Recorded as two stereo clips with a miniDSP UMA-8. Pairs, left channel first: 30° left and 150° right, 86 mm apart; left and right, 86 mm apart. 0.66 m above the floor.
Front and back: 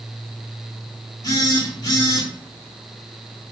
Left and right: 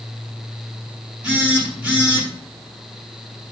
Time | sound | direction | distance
1.2 | a phone buzzing | 15° right | 6.5 m